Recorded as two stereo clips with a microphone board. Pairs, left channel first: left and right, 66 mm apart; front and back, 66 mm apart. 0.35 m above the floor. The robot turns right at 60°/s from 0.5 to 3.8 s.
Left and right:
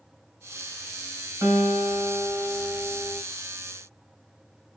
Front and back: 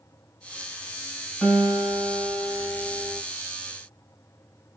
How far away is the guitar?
About 2.0 m.